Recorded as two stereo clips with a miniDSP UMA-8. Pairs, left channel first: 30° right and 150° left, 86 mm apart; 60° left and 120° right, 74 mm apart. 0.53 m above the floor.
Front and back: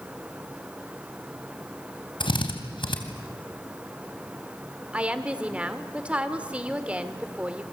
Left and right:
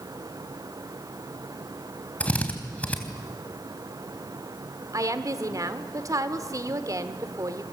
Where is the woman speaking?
135° right, 1.7 m.